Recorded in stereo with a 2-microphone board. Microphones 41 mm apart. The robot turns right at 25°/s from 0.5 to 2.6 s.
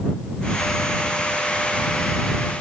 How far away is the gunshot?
I don't hear a gunshot.